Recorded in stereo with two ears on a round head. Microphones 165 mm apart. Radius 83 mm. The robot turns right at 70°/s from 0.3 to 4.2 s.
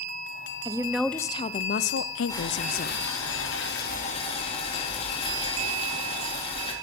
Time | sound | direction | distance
0.7 | a woman speaking | 25° right | 0.5 m
2.3 | boiling | 15° left | 3 m